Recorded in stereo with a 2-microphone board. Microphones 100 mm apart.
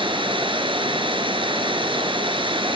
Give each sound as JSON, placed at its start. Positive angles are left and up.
{"t": 0.0, "sound": "running water", "side_deg": -60, "distance_m": 2.5}